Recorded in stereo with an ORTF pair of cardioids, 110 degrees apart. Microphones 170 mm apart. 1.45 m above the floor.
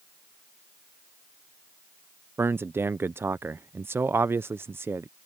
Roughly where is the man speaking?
Ahead.